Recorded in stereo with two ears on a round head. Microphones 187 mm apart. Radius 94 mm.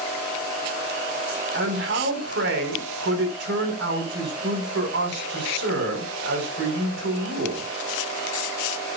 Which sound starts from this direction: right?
A man speaking, at 1.5 s.